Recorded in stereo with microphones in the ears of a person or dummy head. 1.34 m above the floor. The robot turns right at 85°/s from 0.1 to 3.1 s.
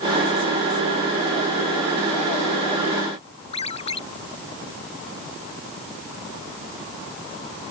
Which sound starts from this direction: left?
A ringtone, at 3.5 s.